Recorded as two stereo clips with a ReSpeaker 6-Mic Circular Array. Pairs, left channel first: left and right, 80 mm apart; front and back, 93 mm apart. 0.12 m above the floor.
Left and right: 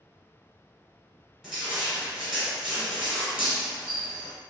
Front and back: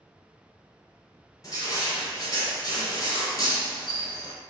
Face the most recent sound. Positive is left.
turn(degrees=-5)